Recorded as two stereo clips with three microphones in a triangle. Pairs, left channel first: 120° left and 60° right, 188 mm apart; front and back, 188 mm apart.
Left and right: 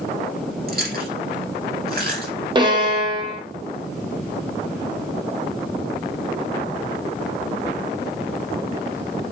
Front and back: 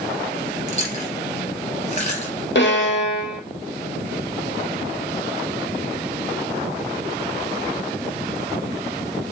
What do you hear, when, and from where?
0.7 s chewing: 50° right, 2.5 m
2.5 s a violin: 5° left, 0.9 m